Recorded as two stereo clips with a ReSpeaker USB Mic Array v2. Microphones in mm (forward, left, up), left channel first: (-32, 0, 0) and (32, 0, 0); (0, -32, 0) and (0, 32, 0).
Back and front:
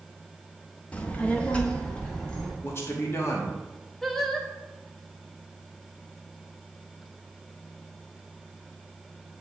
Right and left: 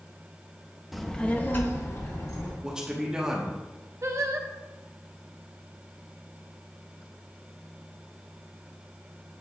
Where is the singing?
95° left, 0.7 m.